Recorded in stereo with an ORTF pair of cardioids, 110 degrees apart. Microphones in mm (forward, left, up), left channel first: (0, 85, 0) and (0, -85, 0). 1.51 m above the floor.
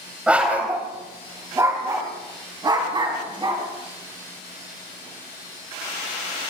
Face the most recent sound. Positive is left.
turn(degrees=-30)